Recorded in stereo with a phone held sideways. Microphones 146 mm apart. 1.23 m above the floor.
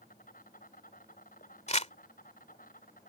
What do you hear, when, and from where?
0.0 s an insect: 70° left (ahead or behind)
1.7 s crumpling: 50° left (ahead or behind)